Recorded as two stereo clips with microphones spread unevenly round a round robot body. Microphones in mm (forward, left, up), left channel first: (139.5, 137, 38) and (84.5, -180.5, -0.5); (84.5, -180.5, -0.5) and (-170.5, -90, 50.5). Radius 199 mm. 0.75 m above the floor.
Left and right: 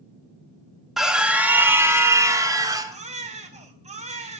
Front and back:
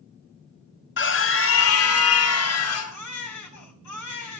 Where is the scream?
15° right, 1.4 m; by 3.0 s 25° right, 2.5 m.